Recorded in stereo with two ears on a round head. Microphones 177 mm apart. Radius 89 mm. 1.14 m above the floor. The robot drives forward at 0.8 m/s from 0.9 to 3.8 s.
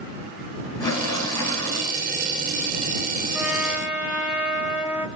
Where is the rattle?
15° left (ahead or behind), 9 m.